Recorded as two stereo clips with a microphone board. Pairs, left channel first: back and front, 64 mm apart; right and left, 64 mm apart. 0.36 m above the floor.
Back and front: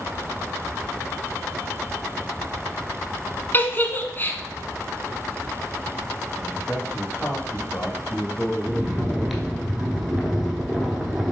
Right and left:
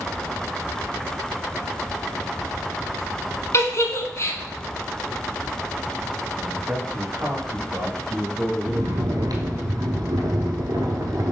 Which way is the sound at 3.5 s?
125° right.